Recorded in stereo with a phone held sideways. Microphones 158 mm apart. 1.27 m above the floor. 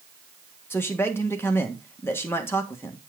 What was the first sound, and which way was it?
A man speaking, 15° left (ahead or behind).